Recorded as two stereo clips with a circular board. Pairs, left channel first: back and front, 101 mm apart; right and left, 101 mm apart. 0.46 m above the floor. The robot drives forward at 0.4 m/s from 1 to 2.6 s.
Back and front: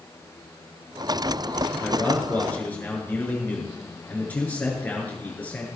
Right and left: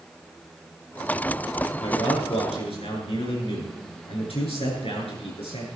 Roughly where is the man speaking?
Right.